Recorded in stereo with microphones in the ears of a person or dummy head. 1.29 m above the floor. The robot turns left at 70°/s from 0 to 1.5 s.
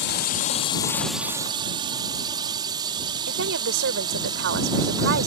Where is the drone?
60° left (ahead or behind); by 5.3 s 25° right (ahead or behind).